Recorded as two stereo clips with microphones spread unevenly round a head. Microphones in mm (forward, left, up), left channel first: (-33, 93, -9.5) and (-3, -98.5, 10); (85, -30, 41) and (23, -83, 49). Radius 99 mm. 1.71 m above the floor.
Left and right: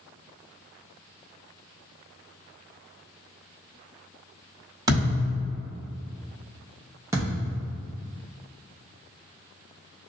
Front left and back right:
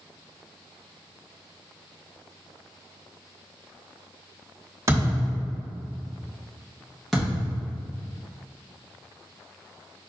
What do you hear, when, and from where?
4.9 s a thud: 130° right, 1.9 m
7.1 s a thud: 50° right, 1.1 m